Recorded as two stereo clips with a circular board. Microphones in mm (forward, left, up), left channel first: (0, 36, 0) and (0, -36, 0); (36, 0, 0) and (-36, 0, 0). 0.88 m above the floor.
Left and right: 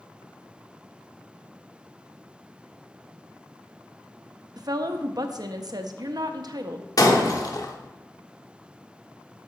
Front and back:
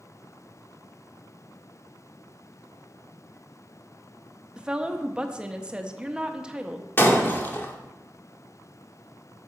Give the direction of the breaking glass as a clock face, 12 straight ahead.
10 o'clock.